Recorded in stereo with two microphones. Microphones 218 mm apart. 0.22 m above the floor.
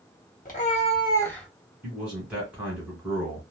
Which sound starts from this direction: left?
A cat meowing, at 0.5 s.